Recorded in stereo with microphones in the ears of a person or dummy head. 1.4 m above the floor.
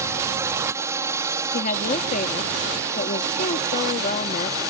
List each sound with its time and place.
0.0 s a drone: 15° right (ahead or behind); by 4.7 s 20° right (ahead or behind)
1.5 s a woman speaking: 50° left (ahead or behind)